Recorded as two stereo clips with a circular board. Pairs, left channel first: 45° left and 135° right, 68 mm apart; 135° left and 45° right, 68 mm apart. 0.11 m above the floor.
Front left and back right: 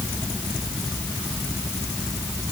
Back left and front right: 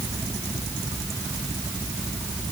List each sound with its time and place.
Only background noise.